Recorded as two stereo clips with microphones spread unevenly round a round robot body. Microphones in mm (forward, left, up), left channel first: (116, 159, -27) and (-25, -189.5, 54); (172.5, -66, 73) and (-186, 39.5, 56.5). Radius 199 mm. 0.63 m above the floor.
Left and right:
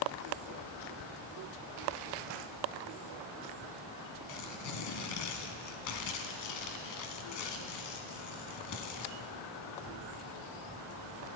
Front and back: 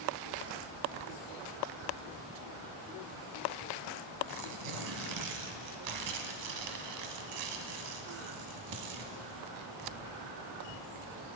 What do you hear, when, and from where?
4.3 s tearing paper: 120° left, 1.1 m